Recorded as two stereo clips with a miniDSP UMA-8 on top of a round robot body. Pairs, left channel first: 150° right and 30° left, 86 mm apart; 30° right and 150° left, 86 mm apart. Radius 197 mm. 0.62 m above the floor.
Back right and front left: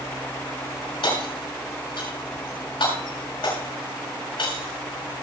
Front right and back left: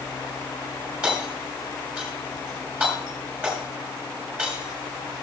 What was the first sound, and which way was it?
Hammering, 135° right.